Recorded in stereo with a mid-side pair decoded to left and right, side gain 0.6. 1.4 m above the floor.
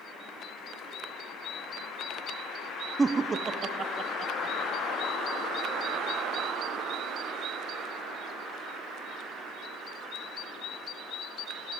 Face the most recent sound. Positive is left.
turn(degrees=-40)